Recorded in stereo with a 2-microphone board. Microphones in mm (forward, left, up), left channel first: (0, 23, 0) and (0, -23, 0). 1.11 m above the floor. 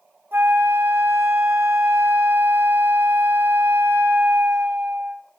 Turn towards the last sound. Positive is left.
turn(degrees=-55)  # may be behind; listen again after turning